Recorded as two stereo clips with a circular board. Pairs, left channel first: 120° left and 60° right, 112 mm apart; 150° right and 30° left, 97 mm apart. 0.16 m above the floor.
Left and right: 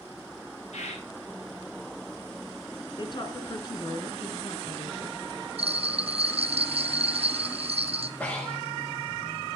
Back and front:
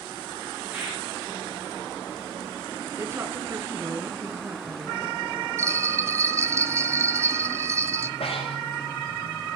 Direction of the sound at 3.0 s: 85° left.